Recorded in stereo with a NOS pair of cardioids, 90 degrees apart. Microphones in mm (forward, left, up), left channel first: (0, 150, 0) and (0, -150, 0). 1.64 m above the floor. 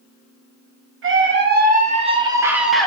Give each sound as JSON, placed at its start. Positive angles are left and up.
{"t": 1.0, "sound": "a scream", "azimuth_deg": -45, "distance_m": 1.2}